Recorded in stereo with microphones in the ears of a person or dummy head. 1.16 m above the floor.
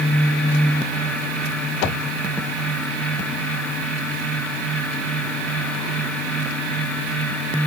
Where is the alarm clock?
No alarm clock in this recording.